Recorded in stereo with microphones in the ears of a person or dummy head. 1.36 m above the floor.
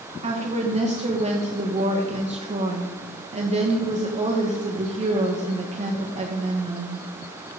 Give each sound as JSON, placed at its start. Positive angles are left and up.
{"t": 0.2, "sound": "a woman speaking", "side_deg": -35, "distance_m": 1.5}